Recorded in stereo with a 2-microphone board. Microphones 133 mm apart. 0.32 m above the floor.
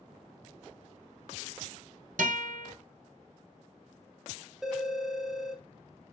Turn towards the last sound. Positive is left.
turn(degrees=0)  # may be behind; listen again after turning